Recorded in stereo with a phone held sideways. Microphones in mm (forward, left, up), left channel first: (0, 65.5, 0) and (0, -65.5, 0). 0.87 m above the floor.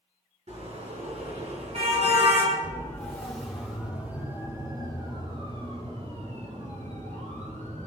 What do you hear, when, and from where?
0.5 s a car horn: 60° right (ahead or behind), 6 m; by 2.6 s 50° right (ahead or behind), 4.5 m
2.6 s a siren: 15° left (ahead or behind), 4 m; by 7.9 s 75° right (ahead or behind), 5.5 m